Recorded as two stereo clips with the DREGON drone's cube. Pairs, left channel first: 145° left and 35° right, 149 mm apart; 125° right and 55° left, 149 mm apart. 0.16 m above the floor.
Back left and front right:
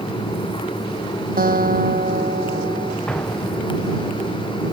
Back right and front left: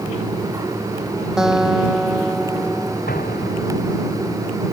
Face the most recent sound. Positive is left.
turn(degrees=-130)